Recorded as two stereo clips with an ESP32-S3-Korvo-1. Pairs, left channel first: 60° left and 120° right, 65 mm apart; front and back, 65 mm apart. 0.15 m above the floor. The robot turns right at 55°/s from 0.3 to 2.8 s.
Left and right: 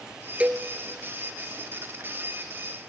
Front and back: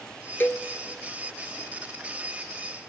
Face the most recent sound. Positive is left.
turn(degrees=75)